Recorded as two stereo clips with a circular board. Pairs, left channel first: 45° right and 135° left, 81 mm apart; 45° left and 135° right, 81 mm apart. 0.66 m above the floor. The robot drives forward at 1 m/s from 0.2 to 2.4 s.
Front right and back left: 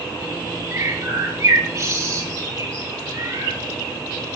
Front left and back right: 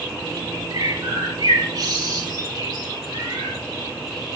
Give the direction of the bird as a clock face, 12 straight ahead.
6 o'clock.